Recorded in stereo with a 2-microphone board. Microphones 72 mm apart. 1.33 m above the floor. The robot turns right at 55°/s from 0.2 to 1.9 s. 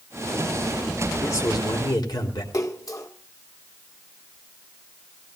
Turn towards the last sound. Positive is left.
turn(degrees=55)  # may be behind; listen again after turning